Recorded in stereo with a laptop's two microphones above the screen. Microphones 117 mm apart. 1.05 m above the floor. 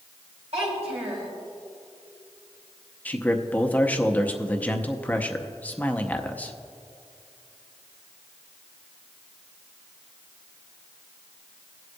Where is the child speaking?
65° right (ahead or behind), 3.5 m.